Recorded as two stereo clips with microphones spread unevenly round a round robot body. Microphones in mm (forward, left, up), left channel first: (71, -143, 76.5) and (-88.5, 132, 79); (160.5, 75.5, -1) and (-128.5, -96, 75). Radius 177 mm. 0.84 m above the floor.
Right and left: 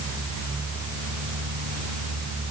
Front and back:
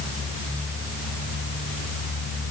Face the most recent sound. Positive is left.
No sound to turn to.